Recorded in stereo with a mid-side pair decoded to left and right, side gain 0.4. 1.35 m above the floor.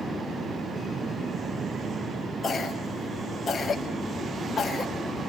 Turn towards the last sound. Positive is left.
turn(degrees=40)